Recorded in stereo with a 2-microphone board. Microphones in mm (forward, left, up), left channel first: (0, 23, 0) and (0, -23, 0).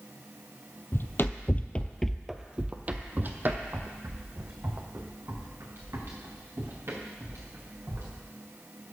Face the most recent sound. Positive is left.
turn(degrees=-65)  # may be behind; listen again after turning